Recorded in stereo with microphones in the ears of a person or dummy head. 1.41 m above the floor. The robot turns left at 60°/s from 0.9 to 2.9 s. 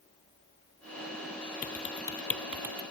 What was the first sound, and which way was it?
Typing on a keyboard, 50° left (ahead or behind).